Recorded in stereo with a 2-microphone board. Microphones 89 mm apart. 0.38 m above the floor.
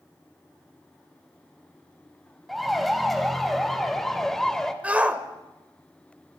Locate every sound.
2.5 s a siren: centre (ahead or behind), 2.5 m; by 4.7 s 5° left (ahead or behind), 1.6 m
4.8 s a shout: 15° right (ahead or behind), 1.6 m